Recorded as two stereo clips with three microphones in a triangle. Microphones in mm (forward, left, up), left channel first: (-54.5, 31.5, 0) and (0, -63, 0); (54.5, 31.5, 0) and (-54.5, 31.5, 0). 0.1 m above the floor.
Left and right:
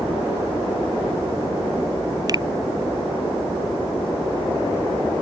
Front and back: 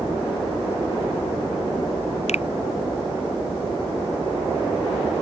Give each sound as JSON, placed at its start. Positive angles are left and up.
{"t": 2.3, "sound": "a finger snap", "azimuth_deg": -5}